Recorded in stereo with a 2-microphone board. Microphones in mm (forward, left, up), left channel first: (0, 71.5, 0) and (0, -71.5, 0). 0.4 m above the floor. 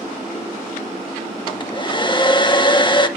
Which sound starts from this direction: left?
A hair dryer, at 1.5 s.